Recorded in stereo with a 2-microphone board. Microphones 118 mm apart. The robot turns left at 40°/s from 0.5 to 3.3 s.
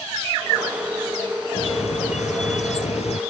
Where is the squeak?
125° left; by 3.2 s 60° left.